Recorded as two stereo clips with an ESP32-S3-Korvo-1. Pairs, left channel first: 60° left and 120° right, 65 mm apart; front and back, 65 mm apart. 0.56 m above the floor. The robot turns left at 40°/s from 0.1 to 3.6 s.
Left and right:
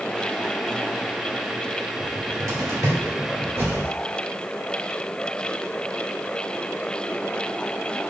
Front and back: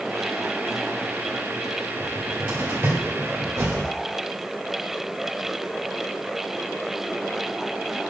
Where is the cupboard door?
100° right, 1.9 m; by 3.9 s 165° right, 1.9 m.